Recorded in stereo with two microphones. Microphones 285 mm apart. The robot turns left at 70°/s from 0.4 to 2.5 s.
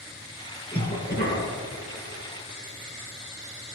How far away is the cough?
About 4 m.